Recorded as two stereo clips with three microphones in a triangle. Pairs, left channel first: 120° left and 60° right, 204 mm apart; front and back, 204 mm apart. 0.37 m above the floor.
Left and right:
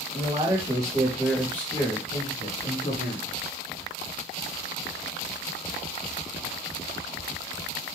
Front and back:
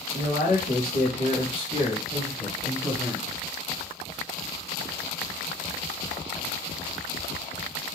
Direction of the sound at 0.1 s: 15° right.